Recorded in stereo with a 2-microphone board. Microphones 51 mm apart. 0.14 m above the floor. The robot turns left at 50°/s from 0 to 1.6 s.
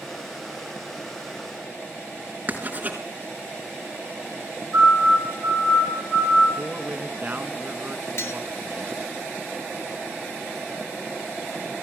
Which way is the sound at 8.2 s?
55° left (ahead or behind).